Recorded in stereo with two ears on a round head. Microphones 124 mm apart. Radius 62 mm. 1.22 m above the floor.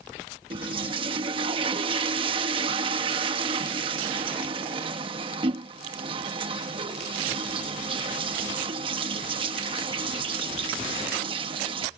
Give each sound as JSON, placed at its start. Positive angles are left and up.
{"t": 0.5, "sound": "a toilet flushing", "side_deg": -40}